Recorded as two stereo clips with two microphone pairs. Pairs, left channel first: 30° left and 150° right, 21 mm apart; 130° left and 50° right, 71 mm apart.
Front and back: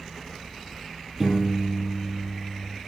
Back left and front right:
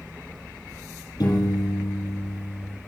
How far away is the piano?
About 4 m.